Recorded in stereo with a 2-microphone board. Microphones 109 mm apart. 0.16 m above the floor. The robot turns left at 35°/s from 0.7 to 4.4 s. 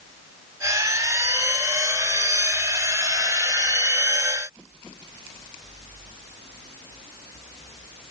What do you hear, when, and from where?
Only background noise.